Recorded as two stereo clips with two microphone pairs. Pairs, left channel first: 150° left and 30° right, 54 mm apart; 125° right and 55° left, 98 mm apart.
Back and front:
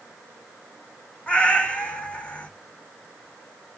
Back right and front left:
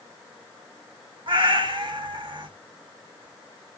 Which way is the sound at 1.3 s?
85° left.